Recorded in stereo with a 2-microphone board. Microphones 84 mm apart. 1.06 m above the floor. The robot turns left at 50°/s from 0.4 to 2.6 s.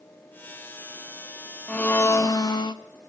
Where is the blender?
165° left, 0.6 m; by 2.8 s 120° left, 0.6 m.